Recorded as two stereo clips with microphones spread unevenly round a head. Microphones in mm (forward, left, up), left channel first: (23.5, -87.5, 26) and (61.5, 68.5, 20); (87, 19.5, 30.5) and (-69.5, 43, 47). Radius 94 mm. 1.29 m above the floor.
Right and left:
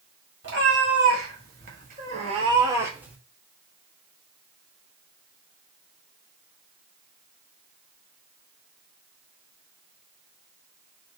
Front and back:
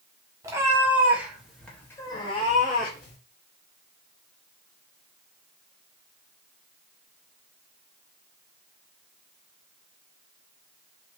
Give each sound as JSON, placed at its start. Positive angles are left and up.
{"t": 0.4, "sound": "a cat meowing", "azimuth_deg": 105, "distance_m": 1.4}